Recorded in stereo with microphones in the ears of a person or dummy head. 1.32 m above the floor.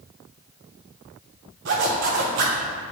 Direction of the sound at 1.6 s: 60° right (ahead or behind).